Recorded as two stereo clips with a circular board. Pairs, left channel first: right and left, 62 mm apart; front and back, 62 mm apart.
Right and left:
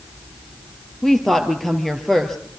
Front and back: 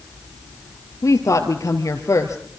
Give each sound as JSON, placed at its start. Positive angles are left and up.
{"t": 1.0, "sound": "a woman speaking", "azimuth_deg": -5, "distance_m": 2.5}